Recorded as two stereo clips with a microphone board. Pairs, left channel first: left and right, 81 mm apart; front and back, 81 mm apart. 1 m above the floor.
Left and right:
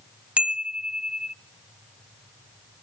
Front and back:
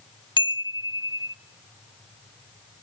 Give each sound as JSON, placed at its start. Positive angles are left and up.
{"t": 0.4, "sound": "a chime", "azimuth_deg": -15, "distance_m": 0.5}